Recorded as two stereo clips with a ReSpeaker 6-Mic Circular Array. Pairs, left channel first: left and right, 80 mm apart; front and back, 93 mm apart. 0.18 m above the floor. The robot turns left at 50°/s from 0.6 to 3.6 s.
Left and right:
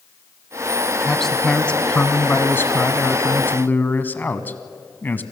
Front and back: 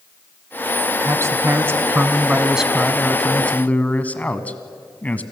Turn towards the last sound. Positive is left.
turn(degrees=55)